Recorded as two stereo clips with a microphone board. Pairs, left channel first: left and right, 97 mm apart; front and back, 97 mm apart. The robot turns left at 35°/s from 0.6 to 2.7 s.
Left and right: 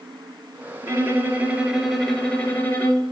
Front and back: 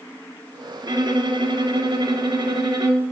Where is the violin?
140° right, 1.3 m; by 3.0 s 155° left, 1.3 m.